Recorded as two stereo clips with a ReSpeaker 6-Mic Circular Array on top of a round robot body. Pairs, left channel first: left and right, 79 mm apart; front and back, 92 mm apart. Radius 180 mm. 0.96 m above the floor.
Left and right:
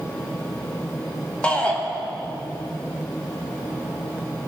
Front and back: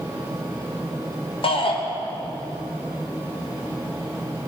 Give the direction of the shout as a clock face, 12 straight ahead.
11 o'clock.